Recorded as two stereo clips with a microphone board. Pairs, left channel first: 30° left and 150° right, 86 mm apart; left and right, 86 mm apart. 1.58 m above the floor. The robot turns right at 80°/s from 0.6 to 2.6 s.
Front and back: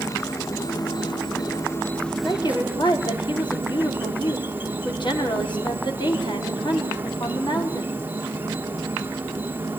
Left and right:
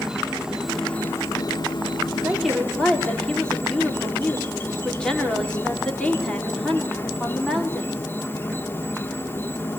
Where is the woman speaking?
20° right, 5 m; by 8.1 s 10° left, 5 m.